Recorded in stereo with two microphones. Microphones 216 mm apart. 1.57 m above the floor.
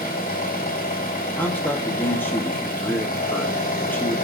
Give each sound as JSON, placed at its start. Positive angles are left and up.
{"t": 0.0, "sound": "an engine running", "side_deg": 40, "distance_m": 3.5}
{"t": 1.4, "sound": "a man speaking", "side_deg": 10, "distance_m": 2.0}